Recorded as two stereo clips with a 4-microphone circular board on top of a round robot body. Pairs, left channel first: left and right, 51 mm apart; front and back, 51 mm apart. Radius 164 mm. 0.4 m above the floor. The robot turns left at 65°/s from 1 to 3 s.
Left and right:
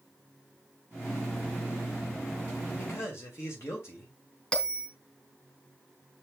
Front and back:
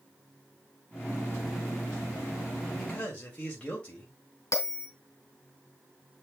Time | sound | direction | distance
2.8 | a man speaking | 80° left | 2.5 m
4.5 | a bell | 20° left | 2 m